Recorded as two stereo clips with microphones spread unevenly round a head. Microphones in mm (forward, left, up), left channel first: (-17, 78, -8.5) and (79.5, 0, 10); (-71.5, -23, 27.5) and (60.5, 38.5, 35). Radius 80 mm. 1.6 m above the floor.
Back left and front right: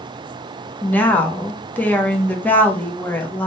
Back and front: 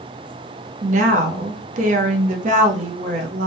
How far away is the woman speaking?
About 0.9 m.